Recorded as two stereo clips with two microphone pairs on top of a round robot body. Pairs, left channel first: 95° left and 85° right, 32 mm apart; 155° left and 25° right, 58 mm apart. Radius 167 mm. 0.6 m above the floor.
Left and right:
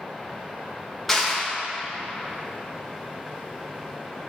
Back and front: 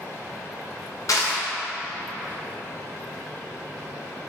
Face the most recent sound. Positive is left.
turn(degrees=180)